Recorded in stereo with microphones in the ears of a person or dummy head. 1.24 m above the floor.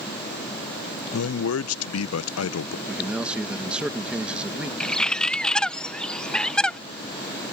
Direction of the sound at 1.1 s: 70° left (ahead or behind).